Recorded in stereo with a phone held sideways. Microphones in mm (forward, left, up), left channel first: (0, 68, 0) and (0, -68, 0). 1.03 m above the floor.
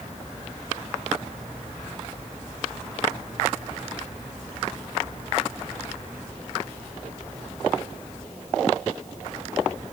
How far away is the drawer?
I don't hear a drawer.